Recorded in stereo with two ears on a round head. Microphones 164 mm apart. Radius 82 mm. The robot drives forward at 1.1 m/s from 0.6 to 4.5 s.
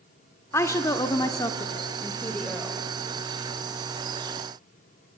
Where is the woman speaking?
15° left (ahead or behind), 1.1 m; by 2.8 s 10° left (ahead or behind), 1.9 m.